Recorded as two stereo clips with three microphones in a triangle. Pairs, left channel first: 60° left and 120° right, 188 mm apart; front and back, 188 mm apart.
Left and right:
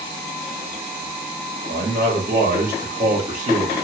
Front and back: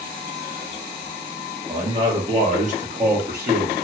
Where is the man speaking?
115° right, 1.5 m; by 3.8 s 170° right, 1.2 m.